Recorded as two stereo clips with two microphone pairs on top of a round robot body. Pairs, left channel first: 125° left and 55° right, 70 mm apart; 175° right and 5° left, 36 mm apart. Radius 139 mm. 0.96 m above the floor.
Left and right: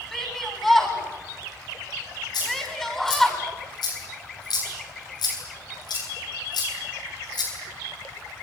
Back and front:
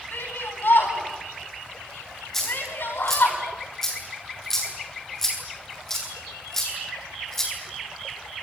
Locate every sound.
0.1 s a shout: 150° right, 9 m
2.3 s a dropped coin: 105° left, 8.5 m